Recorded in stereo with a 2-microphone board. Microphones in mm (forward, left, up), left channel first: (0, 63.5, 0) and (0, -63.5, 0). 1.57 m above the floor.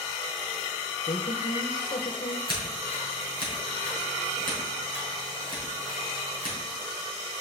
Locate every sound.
1.1 s a woman speaking: 65° left (ahead or behind), 1.0 m
2.5 s scissors: 40° right (ahead or behind), 5.5 m